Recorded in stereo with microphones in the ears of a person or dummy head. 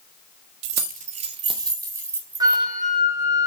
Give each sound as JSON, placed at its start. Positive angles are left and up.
{"t": 0.6, "sound": "keys jangling", "side_deg": -65, "distance_m": 1.2}
{"t": 2.4, "sound": "a flute", "side_deg": -20, "distance_m": 3.0}